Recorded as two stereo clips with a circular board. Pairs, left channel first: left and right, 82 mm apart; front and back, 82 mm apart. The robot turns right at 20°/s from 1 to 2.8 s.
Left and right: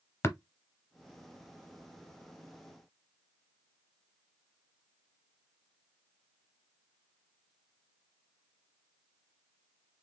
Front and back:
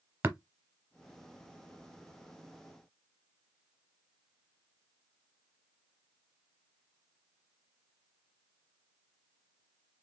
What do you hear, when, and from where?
0.2 s tapping: 130° left, 0.8 m